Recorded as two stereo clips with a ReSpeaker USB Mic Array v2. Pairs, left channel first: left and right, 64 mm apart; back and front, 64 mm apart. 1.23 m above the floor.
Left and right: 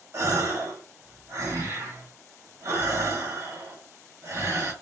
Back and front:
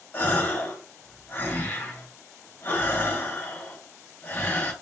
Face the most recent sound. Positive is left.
turn(degrees=-125)